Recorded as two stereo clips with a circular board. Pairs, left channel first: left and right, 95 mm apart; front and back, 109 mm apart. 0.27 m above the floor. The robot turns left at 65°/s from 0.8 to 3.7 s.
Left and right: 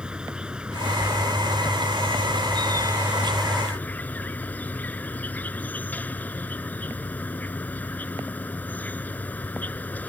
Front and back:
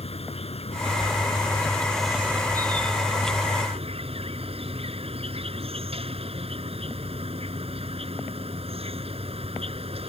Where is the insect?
10° right; by 10.1 s 160° left.